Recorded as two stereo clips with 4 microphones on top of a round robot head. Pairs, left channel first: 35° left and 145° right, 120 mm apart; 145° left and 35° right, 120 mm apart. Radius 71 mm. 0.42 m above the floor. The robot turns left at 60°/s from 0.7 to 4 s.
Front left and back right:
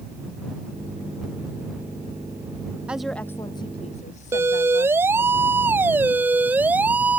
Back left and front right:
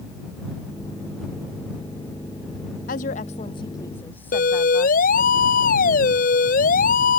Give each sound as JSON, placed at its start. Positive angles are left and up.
{"t": 2.9, "sound": "a woman speaking", "azimuth_deg": 135}
{"t": 4.3, "sound": "a siren", "azimuth_deg": 145}